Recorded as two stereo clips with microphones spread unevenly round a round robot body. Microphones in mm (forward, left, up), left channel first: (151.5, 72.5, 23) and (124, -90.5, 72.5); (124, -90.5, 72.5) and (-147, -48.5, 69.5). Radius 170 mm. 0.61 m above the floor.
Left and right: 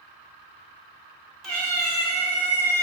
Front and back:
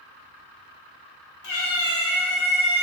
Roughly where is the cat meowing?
Ahead.